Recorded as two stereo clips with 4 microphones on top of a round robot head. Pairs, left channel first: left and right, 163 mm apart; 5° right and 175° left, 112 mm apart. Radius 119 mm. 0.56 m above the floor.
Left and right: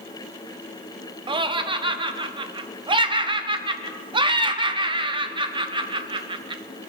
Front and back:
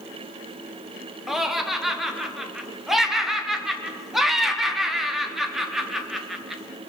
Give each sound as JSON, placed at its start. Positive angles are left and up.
{"t": 1.3, "sound": "laughter", "azimuth_deg": -100, "distance_m": 0.8}